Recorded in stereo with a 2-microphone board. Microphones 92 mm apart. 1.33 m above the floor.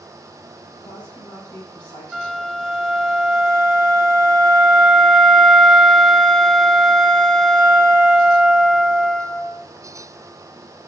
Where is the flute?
5° left (ahead or behind), 1.1 m.